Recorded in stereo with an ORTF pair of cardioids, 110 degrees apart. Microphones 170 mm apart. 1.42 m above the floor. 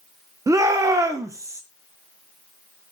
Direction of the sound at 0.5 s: 20° right.